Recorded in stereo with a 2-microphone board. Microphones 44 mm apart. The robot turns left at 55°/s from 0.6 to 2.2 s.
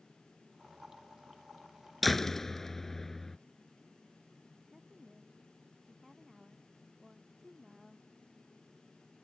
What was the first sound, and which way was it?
A door slam, centre (ahead or behind).